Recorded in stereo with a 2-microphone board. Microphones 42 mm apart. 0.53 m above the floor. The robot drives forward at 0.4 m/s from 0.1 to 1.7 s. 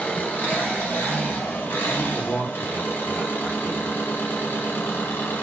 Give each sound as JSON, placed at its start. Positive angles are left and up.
{"t": 0.0, "sound": "an engine running", "side_deg": 50, "distance_m": 1.6}
{"t": 2.0, "sound": "a man speaking", "side_deg": 30, "distance_m": 0.9}